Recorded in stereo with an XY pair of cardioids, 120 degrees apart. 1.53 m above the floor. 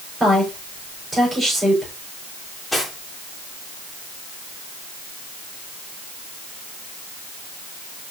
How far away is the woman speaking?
About 5 m.